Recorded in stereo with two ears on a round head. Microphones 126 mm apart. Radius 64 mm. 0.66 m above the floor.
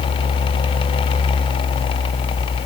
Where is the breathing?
I don't hear breathing.